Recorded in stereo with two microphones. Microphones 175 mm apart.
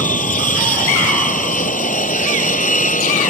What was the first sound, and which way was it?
An aircraft, 55° left (ahead or behind).